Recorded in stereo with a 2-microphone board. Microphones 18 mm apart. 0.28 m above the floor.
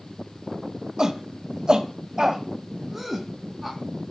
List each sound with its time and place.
1.0 s a shout: 40° right (ahead or behind), 1.6 m; by 3.8 s 5° right (ahead or behind), 2.5 m